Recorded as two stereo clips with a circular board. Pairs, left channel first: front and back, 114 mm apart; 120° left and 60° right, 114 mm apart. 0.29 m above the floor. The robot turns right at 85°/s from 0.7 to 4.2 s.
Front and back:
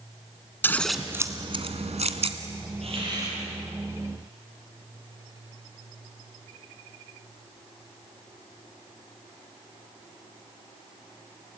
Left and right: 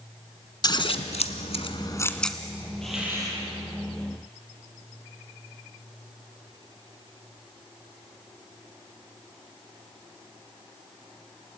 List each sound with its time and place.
0.6 s scissors: 70° left, 1.3 m; by 2.4 s 145° right, 1.3 m
2.8 s a hiss: 155° right, 7 m; by 3.4 s 105° right, 7 m